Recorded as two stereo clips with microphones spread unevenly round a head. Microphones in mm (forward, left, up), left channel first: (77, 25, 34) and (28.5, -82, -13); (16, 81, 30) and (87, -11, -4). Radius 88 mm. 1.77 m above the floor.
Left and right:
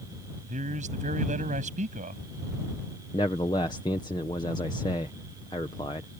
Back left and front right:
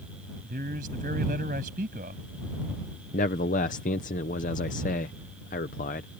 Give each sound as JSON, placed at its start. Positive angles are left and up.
{"t": 0.4, "sound": "a man speaking", "azimuth_deg": -95}
{"t": 3.1, "sound": "a man speaking", "azimuth_deg": 130}